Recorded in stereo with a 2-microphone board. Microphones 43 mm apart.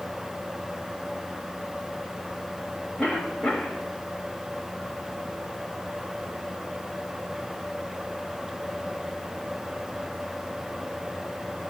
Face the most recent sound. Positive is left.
turn(degrees=30)  # may be behind; listen again after turning